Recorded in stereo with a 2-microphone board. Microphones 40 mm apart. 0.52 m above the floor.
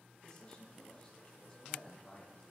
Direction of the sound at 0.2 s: 25° left (ahead or behind).